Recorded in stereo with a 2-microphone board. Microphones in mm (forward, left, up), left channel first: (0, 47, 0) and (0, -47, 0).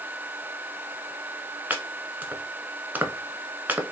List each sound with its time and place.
1.7 s chopping: 20° right (ahead or behind), 0.7 m